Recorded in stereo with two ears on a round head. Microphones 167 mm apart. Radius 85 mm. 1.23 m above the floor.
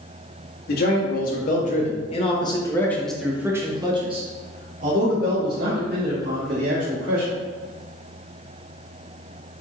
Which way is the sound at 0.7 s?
55° left (ahead or behind).